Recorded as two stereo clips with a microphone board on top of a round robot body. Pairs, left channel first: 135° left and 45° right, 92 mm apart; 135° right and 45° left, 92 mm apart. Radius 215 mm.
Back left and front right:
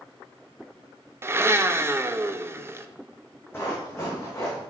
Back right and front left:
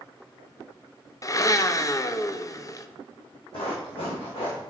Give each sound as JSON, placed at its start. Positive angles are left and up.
{"t": 1.2, "sound": "a blender", "azimuth_deg": -100, "distance_m": 0.7}
{"t": 3.5, "sound": "running footsteps", "azimuth_deg": -160, "distance_m": 1.9}